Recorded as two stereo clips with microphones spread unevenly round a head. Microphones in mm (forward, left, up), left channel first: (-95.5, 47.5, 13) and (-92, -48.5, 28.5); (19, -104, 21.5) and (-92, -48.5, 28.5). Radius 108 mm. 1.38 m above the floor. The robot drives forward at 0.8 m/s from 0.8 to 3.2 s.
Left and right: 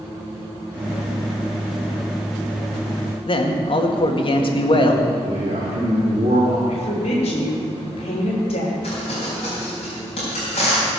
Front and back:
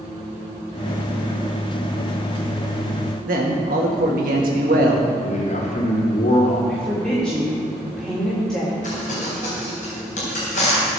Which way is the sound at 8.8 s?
25° left.